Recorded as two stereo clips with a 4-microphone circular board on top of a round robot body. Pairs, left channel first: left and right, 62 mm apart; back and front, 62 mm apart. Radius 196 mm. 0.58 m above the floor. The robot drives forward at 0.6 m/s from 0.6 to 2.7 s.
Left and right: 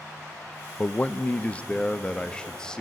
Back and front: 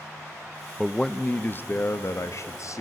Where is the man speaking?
95° left, 0.8 m; by 2.8 s 165° left, 1.4 m.